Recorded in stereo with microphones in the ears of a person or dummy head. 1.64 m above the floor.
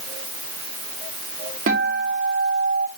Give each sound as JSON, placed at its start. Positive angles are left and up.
{"t": 1.7, "sound": "a guitar", "side_deg": -50, "distance_m": 1.8}